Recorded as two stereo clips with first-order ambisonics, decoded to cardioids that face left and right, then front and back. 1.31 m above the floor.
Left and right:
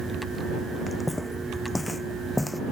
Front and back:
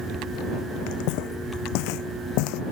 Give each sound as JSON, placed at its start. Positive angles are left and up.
{"t": 0.9, "sound": "footsteps", "azimuth_deg": 5}